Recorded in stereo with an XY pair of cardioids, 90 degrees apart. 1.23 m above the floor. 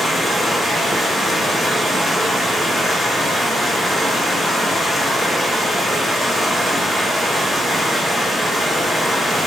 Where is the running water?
5° right, 1.3 m.